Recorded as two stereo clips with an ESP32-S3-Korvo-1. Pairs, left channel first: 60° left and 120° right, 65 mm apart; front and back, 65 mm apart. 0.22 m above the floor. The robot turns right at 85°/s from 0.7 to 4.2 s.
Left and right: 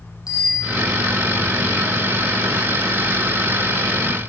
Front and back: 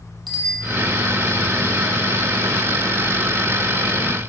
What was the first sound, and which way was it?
A bicycle bell, 90° left.